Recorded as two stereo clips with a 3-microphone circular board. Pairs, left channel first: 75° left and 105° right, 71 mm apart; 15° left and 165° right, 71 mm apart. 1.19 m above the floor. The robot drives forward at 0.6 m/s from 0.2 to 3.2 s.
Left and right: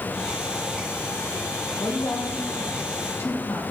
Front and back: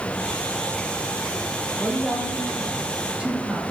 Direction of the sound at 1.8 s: 105° left.